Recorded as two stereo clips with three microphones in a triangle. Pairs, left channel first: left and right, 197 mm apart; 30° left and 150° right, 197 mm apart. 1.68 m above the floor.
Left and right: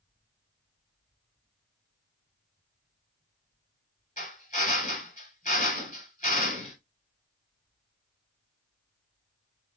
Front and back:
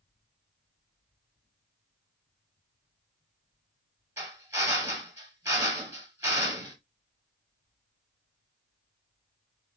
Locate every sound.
4.2 s a drill: 135° left, 2 m